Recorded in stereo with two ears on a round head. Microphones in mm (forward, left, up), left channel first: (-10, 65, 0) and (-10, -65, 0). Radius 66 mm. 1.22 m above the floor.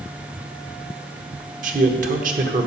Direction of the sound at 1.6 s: 65° right (ahead or behind).